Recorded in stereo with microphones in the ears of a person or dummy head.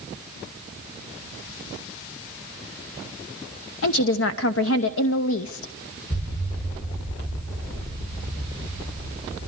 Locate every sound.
3.8 s a woman speaking: 75° left (ahead or behind), 0.8 m
6.1 s an explosion: 25° left (ahead or behind), 1.3 m